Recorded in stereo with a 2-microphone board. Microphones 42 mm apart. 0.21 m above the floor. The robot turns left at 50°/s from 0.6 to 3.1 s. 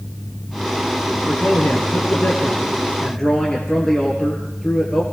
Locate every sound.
1.2 s a man speaking: 100° left, 4 m; by 5.0 s 10° left, 4 m